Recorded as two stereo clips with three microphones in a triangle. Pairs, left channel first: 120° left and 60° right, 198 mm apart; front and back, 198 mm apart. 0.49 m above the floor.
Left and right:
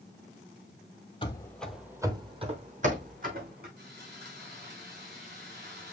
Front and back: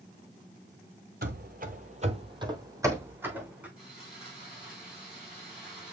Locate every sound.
1.2 s running footsteps: 175° left, 0.7 m; by 3.7 s 95° right, 1.7 m
3.8 s sawing: 95° right, 4 m